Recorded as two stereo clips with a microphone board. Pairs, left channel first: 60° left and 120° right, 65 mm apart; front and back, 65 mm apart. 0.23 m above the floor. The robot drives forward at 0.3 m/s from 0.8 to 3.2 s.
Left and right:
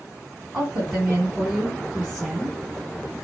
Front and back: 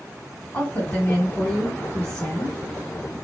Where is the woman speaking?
50° right, 1.8 m; by 2.6 s 75° right, 1.6 m.